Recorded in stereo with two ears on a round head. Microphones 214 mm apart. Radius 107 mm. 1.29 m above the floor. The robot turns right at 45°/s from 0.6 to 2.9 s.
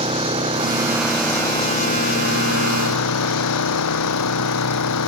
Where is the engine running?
25° right; by 5.1 s 80° left.